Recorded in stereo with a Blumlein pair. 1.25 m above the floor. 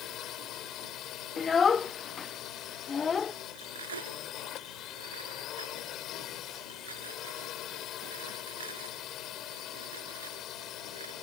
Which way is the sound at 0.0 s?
30° left.